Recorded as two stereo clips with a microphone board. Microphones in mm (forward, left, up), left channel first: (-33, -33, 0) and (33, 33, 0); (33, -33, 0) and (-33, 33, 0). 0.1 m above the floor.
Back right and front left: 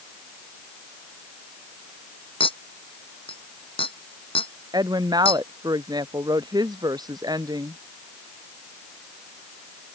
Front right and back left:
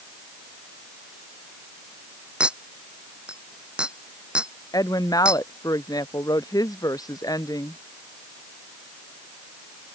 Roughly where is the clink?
Behind right.